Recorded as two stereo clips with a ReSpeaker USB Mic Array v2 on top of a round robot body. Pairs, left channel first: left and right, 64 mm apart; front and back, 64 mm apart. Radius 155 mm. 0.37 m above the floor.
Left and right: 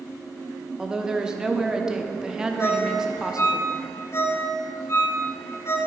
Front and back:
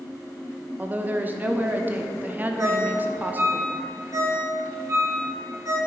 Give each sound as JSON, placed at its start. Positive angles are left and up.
{"t": 0.8, "sound": "a woman speaking", "azimuth_deg": -160, "distance_m": 1.1}
{"t": 2.6, "sound": "a ringtone", "azimuth_deg": 140, "distance_m": 1.7}